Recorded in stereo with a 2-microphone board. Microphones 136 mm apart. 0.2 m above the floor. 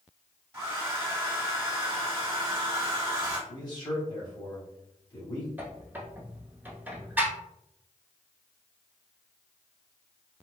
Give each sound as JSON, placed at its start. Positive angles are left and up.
{"t": 0.5, "sound": "a hair dryer", "side_deg": -20, "distance_m": 1.3}
{"t": 3.5, "sound": "a man speaking", "side_deg": 30, "distance_m": 1.8}
{"t": 5.6, "sound": "a squeak", "side_deg": -15, "distance_m": 0.8}